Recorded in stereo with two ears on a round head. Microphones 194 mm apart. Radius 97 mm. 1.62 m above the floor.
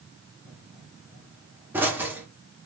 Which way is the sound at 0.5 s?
10° right (ahead or behind).